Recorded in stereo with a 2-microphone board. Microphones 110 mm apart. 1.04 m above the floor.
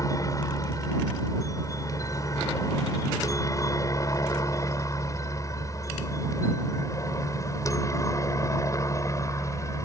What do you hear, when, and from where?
0.0 s a helicopter: 30° left (ahead or behind); by 9.9 s 25° left (ahead or behind)